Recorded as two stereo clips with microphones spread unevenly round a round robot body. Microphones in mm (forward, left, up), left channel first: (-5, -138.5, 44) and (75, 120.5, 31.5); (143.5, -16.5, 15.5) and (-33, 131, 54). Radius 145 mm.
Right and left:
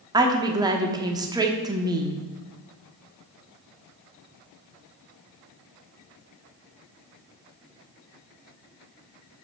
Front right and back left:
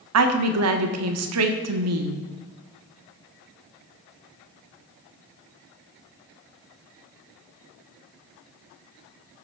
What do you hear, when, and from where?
0.1 s a woman speaking: 145° left, 1.2 m